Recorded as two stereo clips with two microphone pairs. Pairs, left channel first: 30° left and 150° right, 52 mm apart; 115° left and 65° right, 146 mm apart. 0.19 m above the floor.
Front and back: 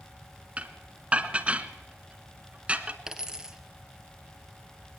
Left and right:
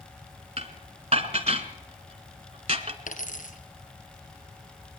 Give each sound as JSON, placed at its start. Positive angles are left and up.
{"t": 0.6, "sound": "dishes clattering", "azimuth_deg": -95, "distance_m": 1.1}
{"t": 3.1, "sound": "a dropped coin", "azimuth_deg": 130, "distance_m": 1.6}